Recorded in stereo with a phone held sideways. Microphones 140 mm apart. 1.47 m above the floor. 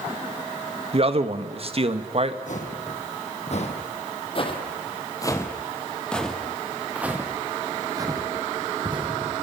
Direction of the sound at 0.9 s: 45° right (ahead or behind).